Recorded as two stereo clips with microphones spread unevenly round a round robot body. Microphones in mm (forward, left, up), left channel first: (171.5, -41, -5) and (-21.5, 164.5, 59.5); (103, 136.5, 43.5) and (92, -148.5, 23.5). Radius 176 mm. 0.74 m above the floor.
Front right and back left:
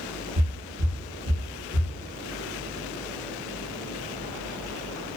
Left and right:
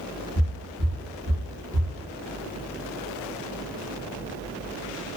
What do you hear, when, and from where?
0.3 s footsteps: 125° left, 1.3 m; by 1.9 s 160° right, 1.0 m